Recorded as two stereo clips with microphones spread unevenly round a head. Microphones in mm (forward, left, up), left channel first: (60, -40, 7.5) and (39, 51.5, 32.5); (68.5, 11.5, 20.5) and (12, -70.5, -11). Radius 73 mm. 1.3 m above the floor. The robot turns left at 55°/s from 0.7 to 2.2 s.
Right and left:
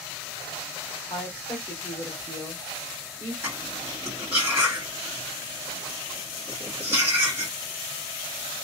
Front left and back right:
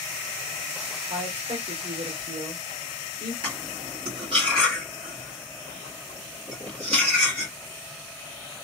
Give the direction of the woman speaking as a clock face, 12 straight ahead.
4 o'clock.